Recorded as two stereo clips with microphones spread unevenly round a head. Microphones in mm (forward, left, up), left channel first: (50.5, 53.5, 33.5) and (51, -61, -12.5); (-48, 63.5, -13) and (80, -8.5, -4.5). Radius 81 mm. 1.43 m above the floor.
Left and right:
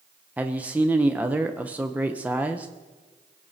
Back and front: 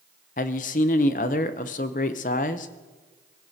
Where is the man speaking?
165° right, 0.7 m.